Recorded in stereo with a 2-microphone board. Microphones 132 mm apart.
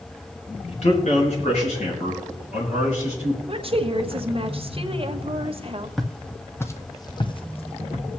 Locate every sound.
0.7 s a man speaking: 55° left (ahead or behind), 4 m; by 3.4 s 70° left (ahead or behind), 6.5 m
3.5 s a woman speaking: 45° right (ahead or behind), 1.1 m
6.0 s footsteps: centre (ahead or behind), 1.1 m; by 8.1 s 60° left (ahead or behind), 1.2 m